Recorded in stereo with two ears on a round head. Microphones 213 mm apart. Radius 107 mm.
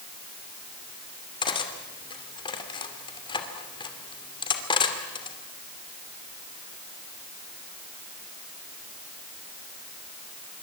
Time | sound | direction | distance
1.4 | cutlery clinking | 20° left (ahead or behind) | 2.5 m